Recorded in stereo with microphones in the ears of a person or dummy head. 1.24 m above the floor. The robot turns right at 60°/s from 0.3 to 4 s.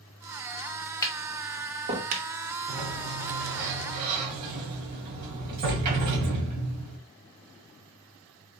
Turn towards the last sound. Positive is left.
turn(degrees=-50)